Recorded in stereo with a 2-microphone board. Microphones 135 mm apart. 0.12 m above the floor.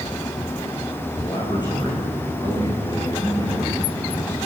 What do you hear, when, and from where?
1.2 s a man speaking: 35° left (ahead or behind), 8.5 m; by 4.4 s 25° left (ahead or behind), 9.5 m